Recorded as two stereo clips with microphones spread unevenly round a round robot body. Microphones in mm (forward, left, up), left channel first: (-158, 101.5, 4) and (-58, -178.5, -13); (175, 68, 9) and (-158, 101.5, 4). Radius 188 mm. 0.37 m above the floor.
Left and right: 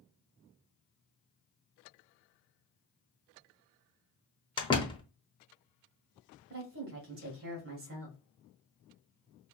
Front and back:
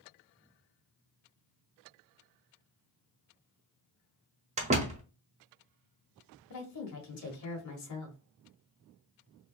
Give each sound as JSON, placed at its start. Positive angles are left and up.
{"t": 4.6, "sound": "a door slam", "azimuth_deg": 160, "distance_m": 0.9}
{"t": 6.5, "sound": "a woman speaking", "azimuth_deg": -35, "distance_m": 1.3}